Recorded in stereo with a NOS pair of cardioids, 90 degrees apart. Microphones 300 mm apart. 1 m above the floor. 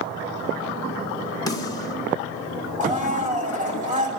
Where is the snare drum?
15° left, 3.5 m.